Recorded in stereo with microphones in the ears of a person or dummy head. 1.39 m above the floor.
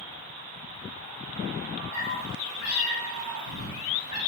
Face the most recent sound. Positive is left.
turn(degrees=45)  # may be behind; listen again after turning